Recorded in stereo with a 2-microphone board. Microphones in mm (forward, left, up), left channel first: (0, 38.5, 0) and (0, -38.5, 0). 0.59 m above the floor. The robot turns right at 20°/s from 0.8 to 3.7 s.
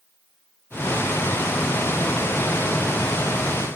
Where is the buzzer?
I don't hear a buzzer.